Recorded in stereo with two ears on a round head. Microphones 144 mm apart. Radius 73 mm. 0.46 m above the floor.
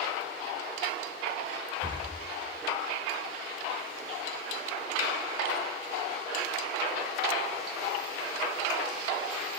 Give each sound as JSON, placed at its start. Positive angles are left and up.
{"t": 1.8, "sound": "breathing", "side_deg": -30, "distance_m": 0.6}